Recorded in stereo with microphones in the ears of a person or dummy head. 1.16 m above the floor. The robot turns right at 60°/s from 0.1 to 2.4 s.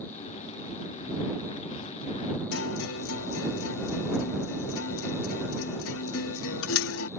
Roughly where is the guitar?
Left.